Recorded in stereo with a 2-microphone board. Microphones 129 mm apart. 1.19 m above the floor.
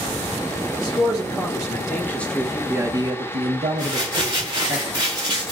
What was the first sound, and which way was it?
A man speaking, 30° left (ahead or behind).